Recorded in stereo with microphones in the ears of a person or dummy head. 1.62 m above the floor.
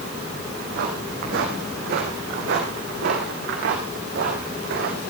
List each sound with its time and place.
0.5 s footsteps: 55° right (ahead or behind), 5.5 m